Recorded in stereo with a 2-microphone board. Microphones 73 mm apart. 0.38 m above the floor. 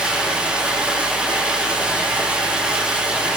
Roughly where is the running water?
Centre.